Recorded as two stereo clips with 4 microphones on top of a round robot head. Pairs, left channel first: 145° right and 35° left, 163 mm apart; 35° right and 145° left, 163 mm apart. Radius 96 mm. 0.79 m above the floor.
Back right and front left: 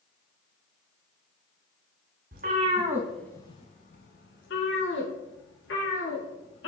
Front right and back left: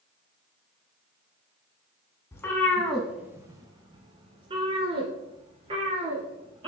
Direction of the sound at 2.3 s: 35° left.